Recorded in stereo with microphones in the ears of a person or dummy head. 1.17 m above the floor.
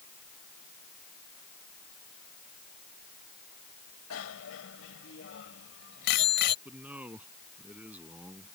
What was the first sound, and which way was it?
A bicycle bell, 80° left.